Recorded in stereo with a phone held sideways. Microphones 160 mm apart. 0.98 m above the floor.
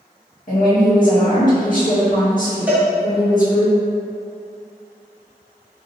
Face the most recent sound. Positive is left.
turn(degrees=-10)  # may be behind; listen again after turning